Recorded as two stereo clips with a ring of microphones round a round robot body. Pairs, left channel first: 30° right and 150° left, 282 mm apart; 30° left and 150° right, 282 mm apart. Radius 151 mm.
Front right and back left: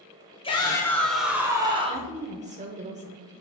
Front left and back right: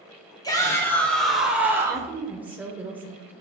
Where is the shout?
15° right, 1.5 m; by 2.1 s 150° left, 1.6 m.